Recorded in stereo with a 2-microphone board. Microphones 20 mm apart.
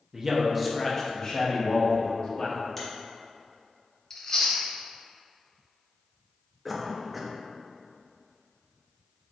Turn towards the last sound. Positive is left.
turn(degrees=0)  # may be behind; listen again after turning